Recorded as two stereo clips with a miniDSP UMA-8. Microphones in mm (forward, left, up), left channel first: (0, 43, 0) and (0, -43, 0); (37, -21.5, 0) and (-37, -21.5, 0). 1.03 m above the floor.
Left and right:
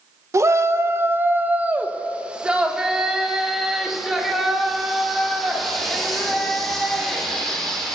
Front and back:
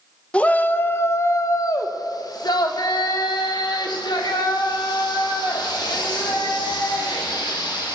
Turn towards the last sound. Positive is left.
turn(degrees=5)